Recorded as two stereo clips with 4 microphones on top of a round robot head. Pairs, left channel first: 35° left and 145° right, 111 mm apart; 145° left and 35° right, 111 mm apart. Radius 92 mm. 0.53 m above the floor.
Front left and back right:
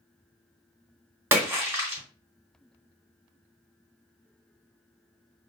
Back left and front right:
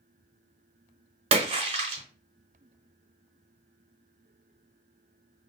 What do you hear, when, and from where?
1.3 s a splash: 70° right, 0.9 m